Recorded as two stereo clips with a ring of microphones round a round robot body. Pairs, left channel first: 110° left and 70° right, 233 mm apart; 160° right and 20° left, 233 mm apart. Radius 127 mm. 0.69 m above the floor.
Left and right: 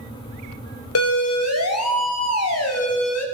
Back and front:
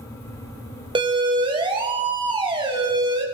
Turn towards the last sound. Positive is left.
turn(degrees=95)